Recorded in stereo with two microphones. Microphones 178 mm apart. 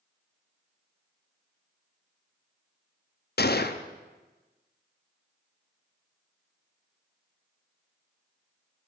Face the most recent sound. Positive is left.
turn(degrees=65)  # may be behind; listen again after turning